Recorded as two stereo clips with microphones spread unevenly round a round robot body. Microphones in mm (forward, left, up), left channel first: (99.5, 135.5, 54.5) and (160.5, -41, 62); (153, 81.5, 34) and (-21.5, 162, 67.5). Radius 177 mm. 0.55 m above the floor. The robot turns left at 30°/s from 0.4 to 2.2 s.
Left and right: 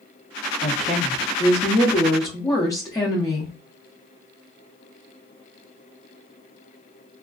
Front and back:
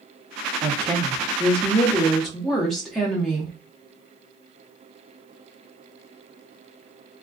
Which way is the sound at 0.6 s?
95° left.